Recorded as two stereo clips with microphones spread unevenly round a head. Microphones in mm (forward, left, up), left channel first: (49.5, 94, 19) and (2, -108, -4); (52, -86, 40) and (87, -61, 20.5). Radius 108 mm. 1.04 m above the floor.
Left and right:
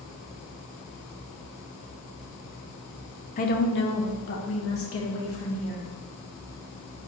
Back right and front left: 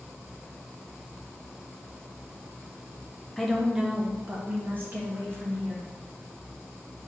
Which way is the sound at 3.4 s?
95° left.